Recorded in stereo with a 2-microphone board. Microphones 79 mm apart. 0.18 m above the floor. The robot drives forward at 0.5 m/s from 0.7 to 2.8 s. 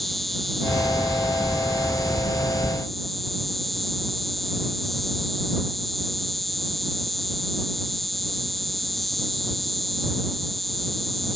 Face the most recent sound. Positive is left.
turn(degrees=0)  # may be behind; listen again after turning